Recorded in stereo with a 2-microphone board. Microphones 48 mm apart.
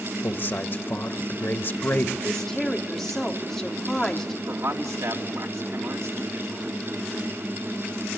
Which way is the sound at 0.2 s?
45° left (ahead or behind).